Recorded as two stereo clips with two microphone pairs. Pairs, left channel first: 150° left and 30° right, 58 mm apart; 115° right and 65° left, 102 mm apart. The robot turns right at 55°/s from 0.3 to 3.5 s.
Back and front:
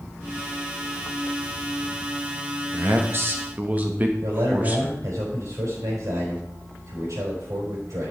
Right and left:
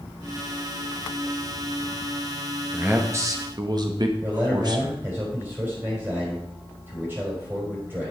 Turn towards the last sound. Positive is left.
turn(degrees=0)